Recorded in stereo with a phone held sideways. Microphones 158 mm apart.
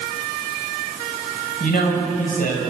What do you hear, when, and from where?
1.6 s a man speaking: 60° left (ahead or behind), 5.5 m